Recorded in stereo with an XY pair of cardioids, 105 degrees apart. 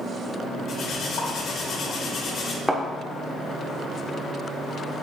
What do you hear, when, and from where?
0.7 s cutlery clinking: 65° left, 2.5 m
2.7 s a thud: 10° right, 1.6 m